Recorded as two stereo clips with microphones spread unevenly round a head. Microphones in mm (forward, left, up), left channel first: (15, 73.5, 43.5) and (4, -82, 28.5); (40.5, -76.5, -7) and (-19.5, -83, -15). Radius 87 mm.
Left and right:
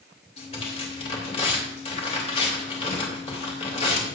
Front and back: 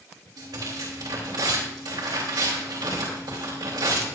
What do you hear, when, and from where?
0.4 s tearing paper: 140° left, 3 m